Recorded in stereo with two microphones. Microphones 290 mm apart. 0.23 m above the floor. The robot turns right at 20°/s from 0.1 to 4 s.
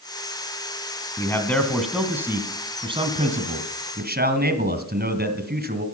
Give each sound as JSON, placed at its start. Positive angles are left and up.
{"t": 1.2, "sound": "a man speaking", "azimuth_deg": 165, "distance_m": 1.9}